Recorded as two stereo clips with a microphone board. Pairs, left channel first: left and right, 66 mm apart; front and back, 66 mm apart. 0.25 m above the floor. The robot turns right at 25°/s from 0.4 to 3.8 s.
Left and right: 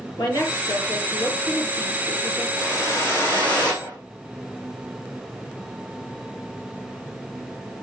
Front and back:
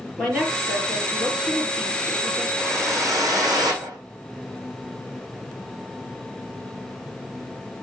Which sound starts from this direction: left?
A woman speaking, at 0.2 s.